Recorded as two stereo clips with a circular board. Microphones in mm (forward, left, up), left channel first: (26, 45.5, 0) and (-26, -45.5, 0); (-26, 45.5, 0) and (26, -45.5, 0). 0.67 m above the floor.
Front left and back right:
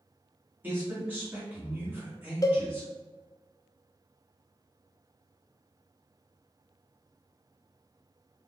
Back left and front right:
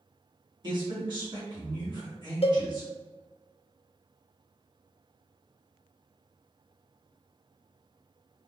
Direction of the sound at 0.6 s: 55° right.